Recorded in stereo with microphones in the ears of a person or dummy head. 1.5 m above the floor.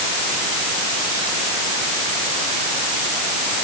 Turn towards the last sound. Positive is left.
No sound to turn to.